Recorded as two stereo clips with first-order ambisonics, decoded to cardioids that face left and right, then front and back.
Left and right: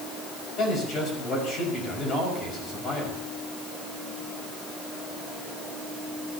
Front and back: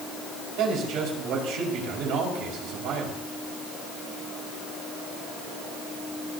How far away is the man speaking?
About 5.5 m.